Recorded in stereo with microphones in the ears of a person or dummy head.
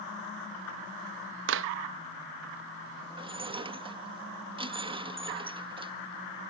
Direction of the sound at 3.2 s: 25° right (ahead or behind).